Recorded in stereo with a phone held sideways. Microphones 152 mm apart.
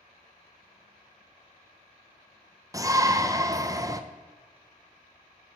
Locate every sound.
2.7 s a shout: 20° right (ahead or behind), 0.5 m